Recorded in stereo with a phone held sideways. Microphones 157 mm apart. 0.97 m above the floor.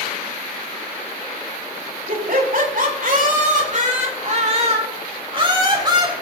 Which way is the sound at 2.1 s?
65° right (ahead or behind).